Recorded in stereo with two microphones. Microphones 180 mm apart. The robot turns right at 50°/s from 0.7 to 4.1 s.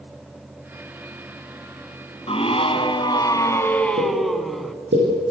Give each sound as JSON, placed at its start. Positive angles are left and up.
{"t": 2.3, "sound": "a scream", "azimuth_deg": 85, "distance_m": 1.4}
{"t": 4.0, "sound": "a pop", "side_deg": -65, "distance_m": 10.0}